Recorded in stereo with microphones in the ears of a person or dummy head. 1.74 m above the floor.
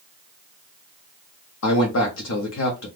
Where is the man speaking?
70° left (ahead or behind), 0.8 m.